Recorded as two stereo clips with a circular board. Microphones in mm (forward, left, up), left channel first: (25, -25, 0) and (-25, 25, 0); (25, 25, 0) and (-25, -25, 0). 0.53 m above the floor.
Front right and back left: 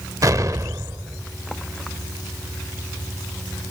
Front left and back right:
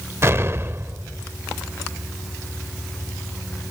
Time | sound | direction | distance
0.2 | an explosion | 175° left | ?